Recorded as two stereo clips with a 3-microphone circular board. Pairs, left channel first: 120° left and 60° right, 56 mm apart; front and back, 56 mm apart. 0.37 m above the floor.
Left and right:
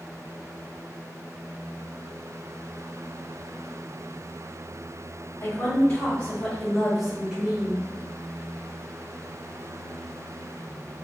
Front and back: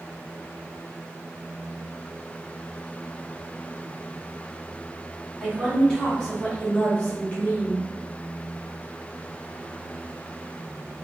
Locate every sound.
5.4 s a woman speaking: 90° left, 2.0 m; by 7.8 s 45° right, 1.6 m